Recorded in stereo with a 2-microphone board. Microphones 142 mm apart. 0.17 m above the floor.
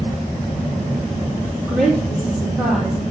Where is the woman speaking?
5° right (ahead or behind), 5 m.